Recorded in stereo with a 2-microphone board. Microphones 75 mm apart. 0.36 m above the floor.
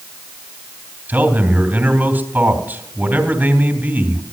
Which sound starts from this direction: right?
A man speaking, at 1.1 s.